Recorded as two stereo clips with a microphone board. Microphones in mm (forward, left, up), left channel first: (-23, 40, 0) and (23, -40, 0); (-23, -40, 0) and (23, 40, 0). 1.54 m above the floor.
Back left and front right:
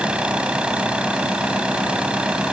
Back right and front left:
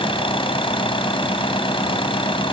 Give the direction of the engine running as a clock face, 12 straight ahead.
5 o'clock.